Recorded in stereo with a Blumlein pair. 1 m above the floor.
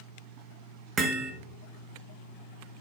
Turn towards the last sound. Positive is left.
turn(degrees=-25)